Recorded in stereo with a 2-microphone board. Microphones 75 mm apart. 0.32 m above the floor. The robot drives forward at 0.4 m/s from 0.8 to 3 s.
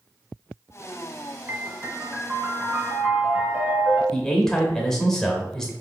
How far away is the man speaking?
About 0.9 m.